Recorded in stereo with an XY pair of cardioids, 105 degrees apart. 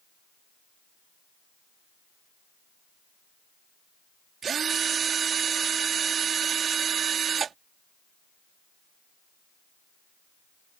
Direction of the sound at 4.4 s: 50° right.